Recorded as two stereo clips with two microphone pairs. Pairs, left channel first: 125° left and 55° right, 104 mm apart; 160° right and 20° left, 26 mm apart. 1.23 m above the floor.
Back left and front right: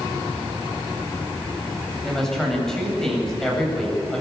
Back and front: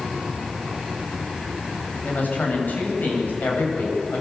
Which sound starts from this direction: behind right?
A woman speaking, at 2.0 s.